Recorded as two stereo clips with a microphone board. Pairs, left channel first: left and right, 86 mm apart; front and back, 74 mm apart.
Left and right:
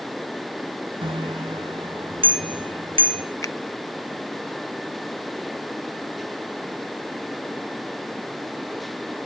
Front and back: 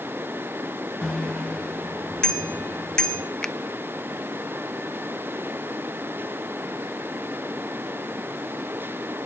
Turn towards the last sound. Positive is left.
turn(degrees=75)